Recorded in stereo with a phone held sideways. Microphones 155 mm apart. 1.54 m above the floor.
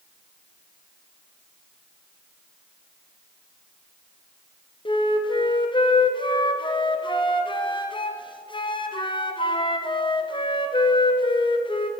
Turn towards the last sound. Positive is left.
turn(degrees=30)  # may be behind; listen again after turning